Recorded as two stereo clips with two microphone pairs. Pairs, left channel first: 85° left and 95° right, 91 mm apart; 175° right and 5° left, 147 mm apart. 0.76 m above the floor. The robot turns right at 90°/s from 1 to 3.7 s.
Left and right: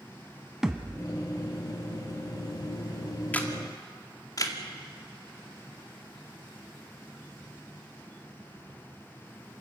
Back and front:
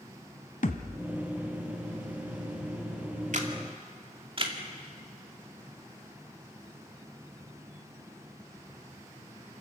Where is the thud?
175° right, 1.2 m; by 1.1 s 170° right, 1.2 m.